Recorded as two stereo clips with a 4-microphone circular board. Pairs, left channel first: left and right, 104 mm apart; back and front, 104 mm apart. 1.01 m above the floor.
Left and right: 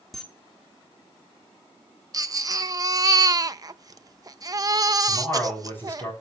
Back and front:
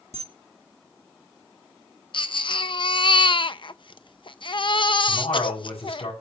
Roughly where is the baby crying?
Behind right.